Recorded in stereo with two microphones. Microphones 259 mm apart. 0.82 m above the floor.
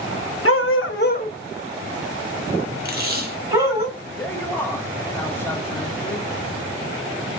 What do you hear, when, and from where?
0.5 s a dog barking: 60° left (ahead or behind), 0.7 m; by 3.9 s 10° right (ahead or behind), 2 m
2.9 s tape being pulled: 40° right (ahead or behind), 0.9 m
4.2 s a man speaking: 10° left (ahead or behind), 1.1 m